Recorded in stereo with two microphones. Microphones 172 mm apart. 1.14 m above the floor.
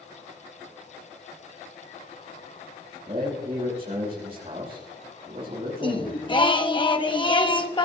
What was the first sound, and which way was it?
A man speaking, 35° right (ahead or behind).